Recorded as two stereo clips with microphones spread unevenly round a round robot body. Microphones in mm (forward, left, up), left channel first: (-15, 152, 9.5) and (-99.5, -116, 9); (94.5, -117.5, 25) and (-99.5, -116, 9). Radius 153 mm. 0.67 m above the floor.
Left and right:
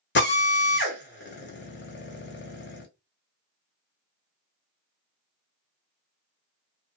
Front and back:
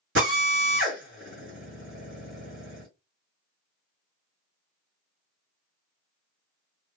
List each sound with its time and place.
0.1 s a drill: 125° left, 1.2 m